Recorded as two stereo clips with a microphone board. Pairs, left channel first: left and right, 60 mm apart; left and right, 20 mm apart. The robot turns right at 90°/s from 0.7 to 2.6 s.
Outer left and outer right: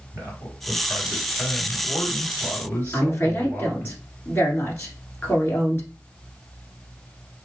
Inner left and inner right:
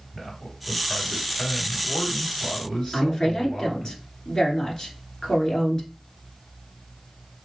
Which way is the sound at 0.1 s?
55° right.